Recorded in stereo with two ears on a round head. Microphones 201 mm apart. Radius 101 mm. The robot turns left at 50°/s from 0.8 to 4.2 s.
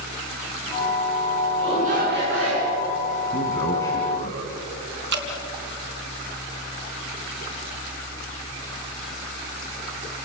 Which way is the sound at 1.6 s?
20° right.